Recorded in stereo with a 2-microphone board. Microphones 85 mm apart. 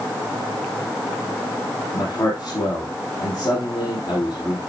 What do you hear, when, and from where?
1.9 s a man speaking: 50° left (ahead or behind), 2.5 m